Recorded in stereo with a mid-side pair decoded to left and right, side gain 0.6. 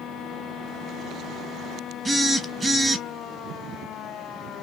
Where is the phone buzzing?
10° right, 0.8 m.